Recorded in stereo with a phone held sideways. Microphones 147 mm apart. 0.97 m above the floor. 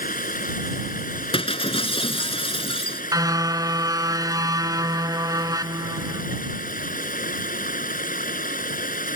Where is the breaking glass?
40° left (ahead or behind).